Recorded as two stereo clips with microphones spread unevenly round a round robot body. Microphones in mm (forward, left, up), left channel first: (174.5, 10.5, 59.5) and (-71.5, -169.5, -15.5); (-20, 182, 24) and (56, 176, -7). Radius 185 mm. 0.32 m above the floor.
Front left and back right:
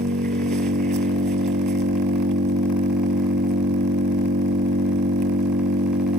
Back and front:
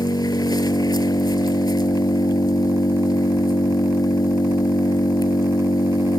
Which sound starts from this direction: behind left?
An engine running, at 0.0 s.